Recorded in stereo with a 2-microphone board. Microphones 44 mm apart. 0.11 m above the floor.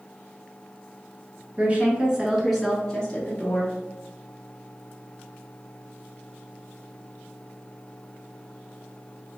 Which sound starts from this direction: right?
A woman speaking, at 1.6 s.